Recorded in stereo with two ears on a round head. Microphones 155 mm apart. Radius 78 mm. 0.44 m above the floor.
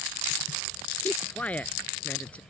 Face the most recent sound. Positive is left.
turn(degrees=10)  # may be behind; listen again after turning